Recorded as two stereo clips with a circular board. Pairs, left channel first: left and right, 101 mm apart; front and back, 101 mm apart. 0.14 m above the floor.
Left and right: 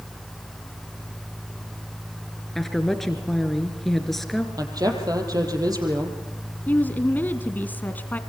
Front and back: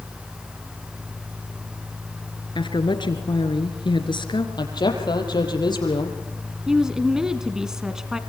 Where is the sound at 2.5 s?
5° left, 2.5 m.